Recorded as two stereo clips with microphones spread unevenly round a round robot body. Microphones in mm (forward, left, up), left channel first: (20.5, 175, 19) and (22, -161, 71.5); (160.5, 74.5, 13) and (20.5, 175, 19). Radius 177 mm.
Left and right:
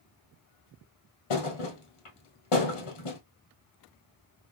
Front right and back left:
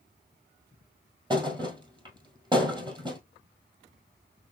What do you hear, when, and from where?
1.3 s a thud: 85° left, 1.7 m